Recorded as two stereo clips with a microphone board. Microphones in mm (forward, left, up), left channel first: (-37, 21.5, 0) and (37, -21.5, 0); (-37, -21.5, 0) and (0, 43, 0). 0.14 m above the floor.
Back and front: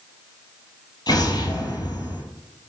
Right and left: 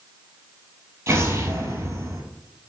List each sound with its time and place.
1.1 s an explosion: 115° left, 0.8 m